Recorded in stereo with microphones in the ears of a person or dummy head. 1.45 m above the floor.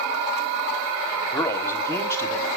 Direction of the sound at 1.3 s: 15° left (ahead or behind).